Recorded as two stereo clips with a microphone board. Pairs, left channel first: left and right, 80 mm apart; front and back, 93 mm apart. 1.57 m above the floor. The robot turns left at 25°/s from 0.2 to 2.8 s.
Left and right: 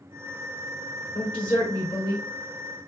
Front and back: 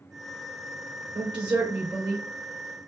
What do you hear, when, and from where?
1.1 s a woman speaking: 155° left, 0.9 m; by 2.2 s 125° left, 0.9 m